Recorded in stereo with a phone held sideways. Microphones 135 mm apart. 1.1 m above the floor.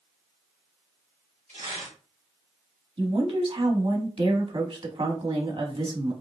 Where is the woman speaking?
45° right (ahead or behind), 1.4 m.